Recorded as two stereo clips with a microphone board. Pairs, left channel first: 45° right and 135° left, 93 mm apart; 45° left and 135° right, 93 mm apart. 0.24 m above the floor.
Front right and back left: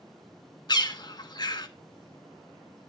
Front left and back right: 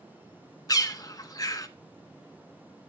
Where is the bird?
5° right, 0.7 m.